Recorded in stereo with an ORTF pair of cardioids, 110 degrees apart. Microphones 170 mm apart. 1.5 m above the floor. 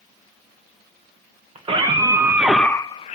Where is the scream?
35° right, 1.5 m; by 3.2 s 50° left, 0.7 m.